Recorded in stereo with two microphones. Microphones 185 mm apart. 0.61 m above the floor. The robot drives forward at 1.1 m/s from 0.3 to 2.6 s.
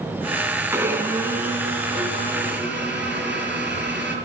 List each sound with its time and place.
0.7 s a blender: 15° right (ahead or behind), 2 m; by 4.2 s 5° right (ahead or behind), 4.5 m